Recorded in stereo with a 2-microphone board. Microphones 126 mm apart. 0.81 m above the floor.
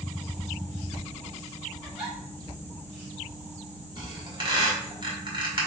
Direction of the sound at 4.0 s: 40° right (ahead or behind).